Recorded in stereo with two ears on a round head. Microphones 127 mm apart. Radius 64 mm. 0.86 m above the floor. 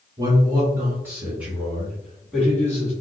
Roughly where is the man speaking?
Right.